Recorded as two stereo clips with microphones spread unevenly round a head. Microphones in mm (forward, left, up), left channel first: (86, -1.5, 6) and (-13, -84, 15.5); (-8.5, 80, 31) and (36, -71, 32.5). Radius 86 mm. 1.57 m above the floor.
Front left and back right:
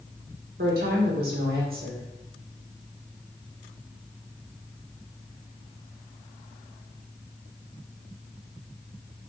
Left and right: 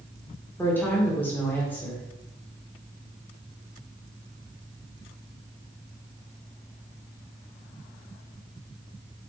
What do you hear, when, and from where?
0.6 s a woman speaking: 175° right, 2 m